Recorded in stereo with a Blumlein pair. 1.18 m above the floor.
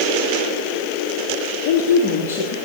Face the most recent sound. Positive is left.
turn(degrees=35)